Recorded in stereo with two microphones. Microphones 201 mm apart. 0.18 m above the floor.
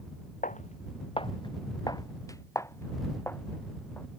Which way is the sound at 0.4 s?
40° left (ahead or behind).